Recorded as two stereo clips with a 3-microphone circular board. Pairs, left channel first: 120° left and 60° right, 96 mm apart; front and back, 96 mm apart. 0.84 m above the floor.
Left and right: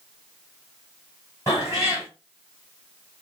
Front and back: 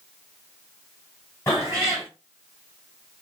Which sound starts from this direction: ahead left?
A cat meowing, at 1.5 s.